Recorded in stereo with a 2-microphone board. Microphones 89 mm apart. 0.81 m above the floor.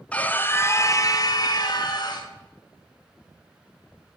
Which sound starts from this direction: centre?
A scream, at 0.1 s.